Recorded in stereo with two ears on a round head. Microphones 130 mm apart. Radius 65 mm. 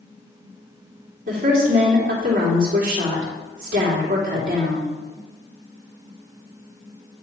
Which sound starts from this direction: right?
A woman speaking, at 1.3 s.